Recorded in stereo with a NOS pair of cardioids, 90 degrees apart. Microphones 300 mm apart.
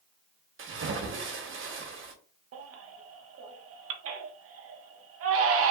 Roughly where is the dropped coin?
I don't hear a dropped coin.